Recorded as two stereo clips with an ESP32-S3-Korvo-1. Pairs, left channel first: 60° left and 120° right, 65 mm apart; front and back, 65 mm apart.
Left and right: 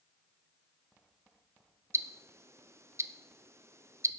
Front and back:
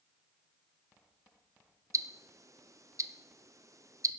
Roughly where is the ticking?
Behind.